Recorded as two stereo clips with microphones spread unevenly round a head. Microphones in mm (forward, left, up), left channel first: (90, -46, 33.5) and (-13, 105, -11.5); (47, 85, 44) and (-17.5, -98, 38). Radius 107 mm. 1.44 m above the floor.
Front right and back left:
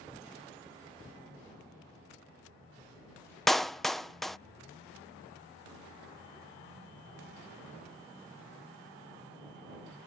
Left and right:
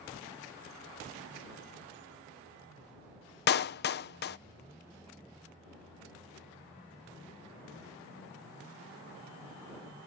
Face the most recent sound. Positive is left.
turn(degrees=30)